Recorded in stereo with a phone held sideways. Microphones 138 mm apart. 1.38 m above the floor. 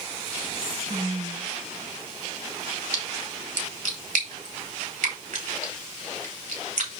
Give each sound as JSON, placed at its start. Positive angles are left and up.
{"t": 0.5, "sound": "whispering", "side_deg": -50, "distance_m": 1.7}
{"t": 2.9, "sound": "a splash", "side_deg": -70, "distance_m": 3.0}